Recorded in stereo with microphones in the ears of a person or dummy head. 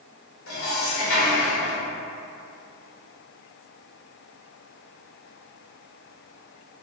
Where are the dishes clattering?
75° left (ahead or behind), 1.0 m.